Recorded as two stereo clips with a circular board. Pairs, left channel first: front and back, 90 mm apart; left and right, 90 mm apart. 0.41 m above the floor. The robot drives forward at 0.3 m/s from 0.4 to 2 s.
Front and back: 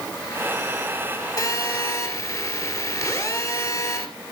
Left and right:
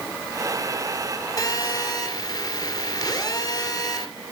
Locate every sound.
1.4 s a phone buzzing: 45° left, 2.5 m